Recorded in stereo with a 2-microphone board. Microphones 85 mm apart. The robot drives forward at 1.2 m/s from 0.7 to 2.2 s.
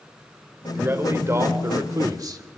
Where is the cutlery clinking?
No cutlery clinking in this recording.